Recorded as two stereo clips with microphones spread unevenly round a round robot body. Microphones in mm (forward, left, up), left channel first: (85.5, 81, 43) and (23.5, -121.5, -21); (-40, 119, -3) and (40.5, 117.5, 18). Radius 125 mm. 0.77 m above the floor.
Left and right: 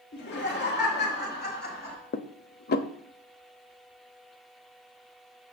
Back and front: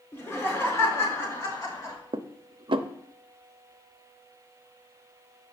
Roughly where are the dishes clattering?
Ahead left.